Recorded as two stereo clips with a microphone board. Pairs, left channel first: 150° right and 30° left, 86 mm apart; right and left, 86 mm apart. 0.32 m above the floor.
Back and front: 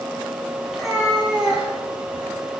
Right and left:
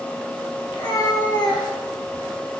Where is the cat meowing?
60° right, 1.4 m; by 2.3 s 30° right, 0.8 m.